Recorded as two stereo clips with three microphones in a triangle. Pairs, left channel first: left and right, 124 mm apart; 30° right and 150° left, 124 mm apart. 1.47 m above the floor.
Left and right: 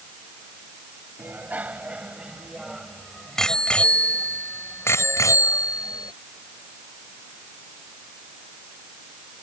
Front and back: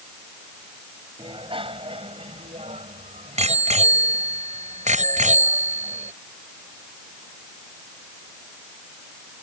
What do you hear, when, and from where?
1.2 s a bicycle bell: 165° right; by 6.1 s 145° left